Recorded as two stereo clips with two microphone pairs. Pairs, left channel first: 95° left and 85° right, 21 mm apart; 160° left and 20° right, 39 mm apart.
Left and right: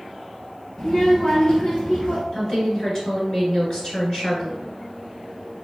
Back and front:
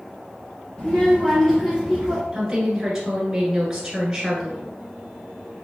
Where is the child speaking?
120° left, 0.7 m; by 2.2 s 60° left, 1.2 m.